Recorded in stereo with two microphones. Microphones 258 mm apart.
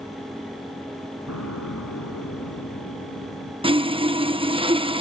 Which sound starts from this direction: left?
An explosion, at 1.3 s.